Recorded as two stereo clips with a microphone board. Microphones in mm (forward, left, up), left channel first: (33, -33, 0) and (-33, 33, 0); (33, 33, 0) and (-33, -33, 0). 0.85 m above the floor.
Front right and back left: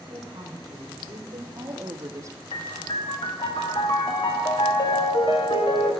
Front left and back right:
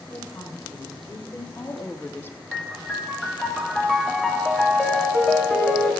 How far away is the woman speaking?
About 4 m.